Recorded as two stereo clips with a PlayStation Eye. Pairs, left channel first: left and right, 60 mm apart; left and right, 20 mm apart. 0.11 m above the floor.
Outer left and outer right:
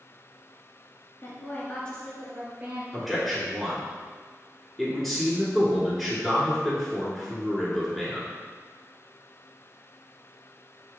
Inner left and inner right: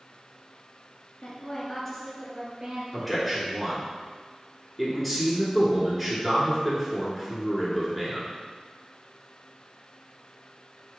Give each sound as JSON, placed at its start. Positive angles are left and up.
{"t": 1.2, "sound": "a woman speaking", "side_deg": 45, "distance_m": 1.9}
{"t": 2.9, "sound": "a man speaking", "side_deg": 5, "distance_m": 1.4}